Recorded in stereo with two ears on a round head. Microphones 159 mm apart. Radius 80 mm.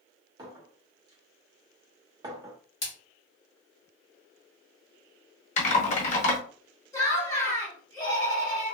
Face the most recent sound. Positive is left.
turn(degrees=20)  # may be behind; listen again after turning